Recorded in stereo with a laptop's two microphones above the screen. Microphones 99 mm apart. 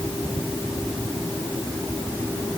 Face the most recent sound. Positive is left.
No sound to turn to.